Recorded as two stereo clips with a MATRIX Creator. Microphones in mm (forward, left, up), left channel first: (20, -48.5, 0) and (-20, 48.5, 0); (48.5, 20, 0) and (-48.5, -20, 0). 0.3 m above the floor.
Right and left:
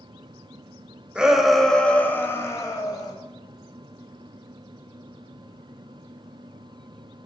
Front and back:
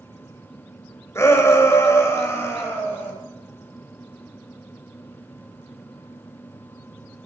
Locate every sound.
1.1 s a shout: 45° left, 1.1 m; by 3.1 s 35° right, 1.3 m